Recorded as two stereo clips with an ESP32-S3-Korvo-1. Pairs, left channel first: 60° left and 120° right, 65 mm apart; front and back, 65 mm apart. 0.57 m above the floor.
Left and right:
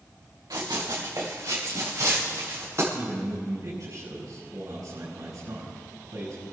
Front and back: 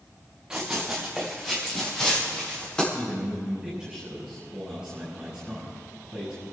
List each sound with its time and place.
0.5 s running footsteps: 100° right, 3.5 m; by 2.8 s 75° right, 6.5 m
2.9 s a man speaking: 100° right, 6.5 m